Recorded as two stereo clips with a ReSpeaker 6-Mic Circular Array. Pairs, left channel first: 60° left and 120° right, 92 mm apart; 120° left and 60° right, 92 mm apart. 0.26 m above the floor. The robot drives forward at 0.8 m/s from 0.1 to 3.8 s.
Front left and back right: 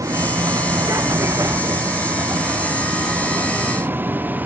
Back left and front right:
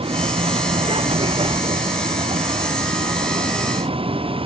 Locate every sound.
0.0 s a vehicle: 65° right; by 4.5 s 50° right